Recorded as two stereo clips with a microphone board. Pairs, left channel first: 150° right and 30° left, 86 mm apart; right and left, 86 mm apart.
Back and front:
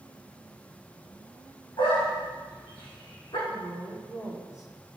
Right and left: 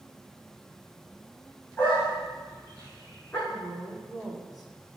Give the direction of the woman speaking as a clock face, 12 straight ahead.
6 o'clock.